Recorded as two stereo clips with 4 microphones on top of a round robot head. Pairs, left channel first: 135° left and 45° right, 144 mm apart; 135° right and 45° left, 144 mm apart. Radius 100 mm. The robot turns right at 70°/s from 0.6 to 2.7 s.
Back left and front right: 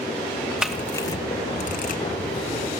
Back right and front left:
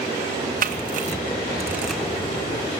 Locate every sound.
0.6 s a camera shutter: 40° left, 1.7 m; by 2.0 s 140° left, 1.7 m